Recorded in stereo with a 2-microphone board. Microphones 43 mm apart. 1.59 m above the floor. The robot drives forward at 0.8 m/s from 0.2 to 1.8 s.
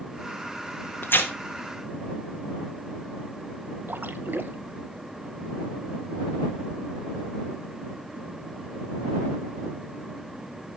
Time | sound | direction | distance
1.0 | tearing paper | 65° left (ahead or behind) | 1.7 m
3.9 | a splash | 55° right (ahead or behind) | 1.0 m